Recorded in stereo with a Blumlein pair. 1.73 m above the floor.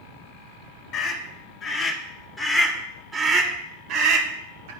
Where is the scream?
45° left, 1.6 m; by 4.7 s 65° right, 1.3 m.